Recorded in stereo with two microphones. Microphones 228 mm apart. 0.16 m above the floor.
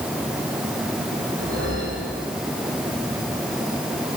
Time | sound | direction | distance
1.4 | a whoosh | 85° right | 9 m